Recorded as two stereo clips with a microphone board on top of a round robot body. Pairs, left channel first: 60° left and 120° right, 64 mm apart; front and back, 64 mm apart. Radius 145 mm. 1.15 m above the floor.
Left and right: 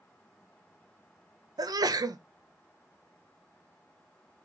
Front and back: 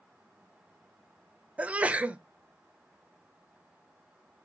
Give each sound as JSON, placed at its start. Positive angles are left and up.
{"t": 1.6, "sound": "a sneeze", "azimuth_deg": -110, "distance_m": 0.6}